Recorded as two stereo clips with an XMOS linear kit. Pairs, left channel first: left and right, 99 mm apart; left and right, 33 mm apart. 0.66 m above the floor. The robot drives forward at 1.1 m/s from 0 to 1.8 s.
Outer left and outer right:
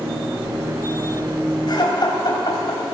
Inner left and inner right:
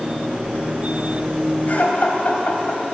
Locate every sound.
1.7 s laughter: 50° left (ahead or behind), 3.5 m; by 3.0 s 45° left (ahead or behind), 4 m